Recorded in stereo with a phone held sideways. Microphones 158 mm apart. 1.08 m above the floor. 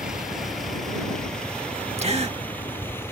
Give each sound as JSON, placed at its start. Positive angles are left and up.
{"t": 0.0, "sound": "a vehicle", "side_deg": -5}
{"t": 2.0, "sound": "a gasp", "side_deg": -40}